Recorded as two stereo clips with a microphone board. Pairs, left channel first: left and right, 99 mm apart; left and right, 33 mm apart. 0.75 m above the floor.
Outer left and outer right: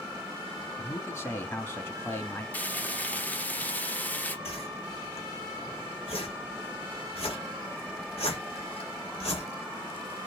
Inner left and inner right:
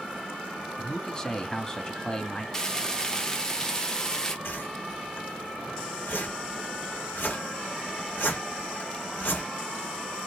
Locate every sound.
0.8 s a man speaking: 25° left (ahead or behind), 1.3 m
2.5 s frying: 20° left (ahead or behind), 1.0 m
4.5 s a whoosh: 80° left, 1.5 m